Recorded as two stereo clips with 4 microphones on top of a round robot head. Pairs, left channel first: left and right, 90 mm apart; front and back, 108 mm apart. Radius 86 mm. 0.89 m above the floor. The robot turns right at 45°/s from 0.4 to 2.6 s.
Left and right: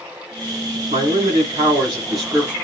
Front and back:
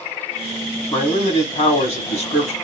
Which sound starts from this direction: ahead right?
A man speaking, at 0.9 s.